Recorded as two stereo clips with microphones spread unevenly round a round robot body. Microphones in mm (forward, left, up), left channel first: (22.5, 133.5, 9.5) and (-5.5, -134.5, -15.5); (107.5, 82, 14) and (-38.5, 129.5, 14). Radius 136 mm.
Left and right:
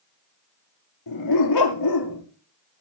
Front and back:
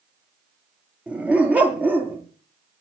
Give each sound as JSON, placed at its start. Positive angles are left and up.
{"t": 1.1, "sound": "a dog barking", "azimuth_deg": 80, "distance_m": 4.5}